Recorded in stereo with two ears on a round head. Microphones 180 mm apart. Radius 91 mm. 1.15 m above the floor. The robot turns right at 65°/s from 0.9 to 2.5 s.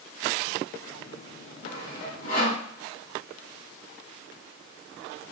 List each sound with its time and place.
1.6 s sawing: 40° left (ahead or behind), 1.3 m; by 2.6 s 35° left (ahead or behind), 1.3 m